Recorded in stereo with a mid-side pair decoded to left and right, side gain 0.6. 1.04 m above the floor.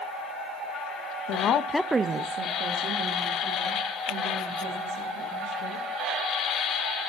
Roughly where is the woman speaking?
Left.